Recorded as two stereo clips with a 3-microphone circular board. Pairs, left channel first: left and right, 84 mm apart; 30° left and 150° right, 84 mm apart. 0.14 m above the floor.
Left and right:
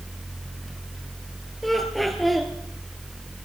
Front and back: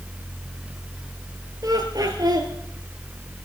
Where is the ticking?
I don't hear ticking.